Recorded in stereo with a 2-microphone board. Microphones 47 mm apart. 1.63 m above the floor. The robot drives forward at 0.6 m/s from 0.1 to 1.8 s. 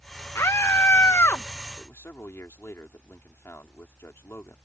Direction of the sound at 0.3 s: 85° left.